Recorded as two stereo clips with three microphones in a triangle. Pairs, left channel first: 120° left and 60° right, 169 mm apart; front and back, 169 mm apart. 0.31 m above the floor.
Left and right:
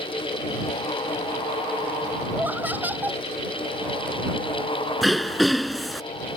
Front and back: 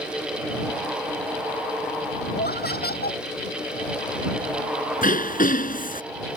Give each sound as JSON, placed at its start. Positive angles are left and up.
{"t": 2.3, "sound": "laughter", "azimuth_deg": 20}
{"t": 5.0, "sound": "throat clearing", "azimuth_deg": 30}